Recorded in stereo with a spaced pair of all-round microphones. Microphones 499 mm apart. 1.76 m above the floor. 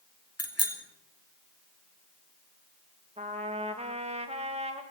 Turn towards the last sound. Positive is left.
turn(degrees=-15)  # may be behind; listen again after turning